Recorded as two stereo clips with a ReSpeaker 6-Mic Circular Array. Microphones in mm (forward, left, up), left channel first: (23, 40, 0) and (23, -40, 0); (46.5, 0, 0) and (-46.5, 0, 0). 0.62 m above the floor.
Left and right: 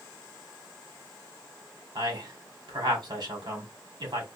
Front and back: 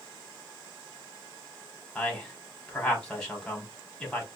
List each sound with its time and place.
1.9 s a man speaking: 80° right, 1.9 m